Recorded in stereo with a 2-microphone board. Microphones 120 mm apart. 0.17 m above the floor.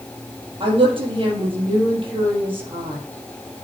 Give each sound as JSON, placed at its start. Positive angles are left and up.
{"t": 0.6, "sound": "a woman speaking", "side_deg": -45, "distance_m": 4.0}